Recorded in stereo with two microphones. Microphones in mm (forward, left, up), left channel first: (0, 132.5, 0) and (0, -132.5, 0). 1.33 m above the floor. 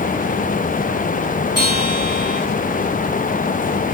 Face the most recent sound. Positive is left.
turn(degrees=60)  # may be behind; listen again after turning